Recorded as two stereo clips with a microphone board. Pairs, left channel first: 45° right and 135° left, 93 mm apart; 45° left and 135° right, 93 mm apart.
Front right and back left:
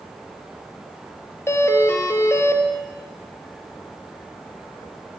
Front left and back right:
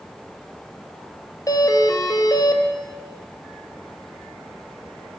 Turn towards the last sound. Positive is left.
turn(degrees=10)